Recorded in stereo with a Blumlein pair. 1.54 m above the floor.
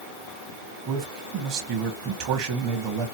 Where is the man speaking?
40° right, 1.2 m.